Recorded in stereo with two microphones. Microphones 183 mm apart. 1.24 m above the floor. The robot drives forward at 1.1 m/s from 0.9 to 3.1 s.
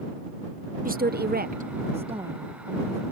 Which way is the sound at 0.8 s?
50° right (ahead or behind).